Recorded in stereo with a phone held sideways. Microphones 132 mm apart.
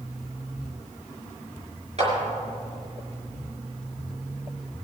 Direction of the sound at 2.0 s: 50° right (ahead or behind).